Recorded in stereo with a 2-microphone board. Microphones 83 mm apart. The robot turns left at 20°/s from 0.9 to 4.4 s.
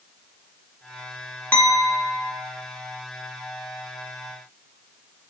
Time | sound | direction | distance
1.5 | a clink | 25° left (ahead or behind) | 0.6 m